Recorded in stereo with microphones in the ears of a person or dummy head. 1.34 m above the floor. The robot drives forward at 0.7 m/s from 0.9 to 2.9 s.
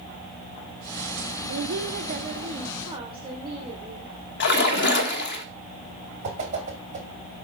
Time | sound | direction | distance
1.5 | a woman speaking | 80° right | 0.6 m
4.4 | a splash | 60° left (ahead or behind) | 1.2 m
6.2 | a whoosh | 40° right (ahead or behind) | 2 m